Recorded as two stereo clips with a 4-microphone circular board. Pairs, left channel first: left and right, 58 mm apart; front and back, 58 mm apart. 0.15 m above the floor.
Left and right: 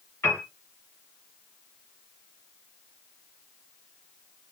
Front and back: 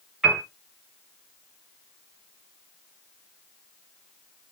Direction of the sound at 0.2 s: 105° left.